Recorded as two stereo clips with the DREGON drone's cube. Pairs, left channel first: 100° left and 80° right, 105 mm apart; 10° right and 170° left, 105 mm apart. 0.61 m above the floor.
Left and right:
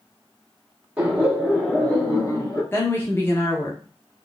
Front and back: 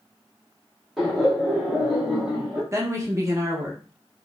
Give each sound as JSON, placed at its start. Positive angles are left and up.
{"t": 1.0, "sound": "laughter", "azimuth_deg": -105, "distance_m": 0.9}
{"t": 2.7, "sound": "a woman speaking", "azimuth_deg": 135, "distance_m": 0.7}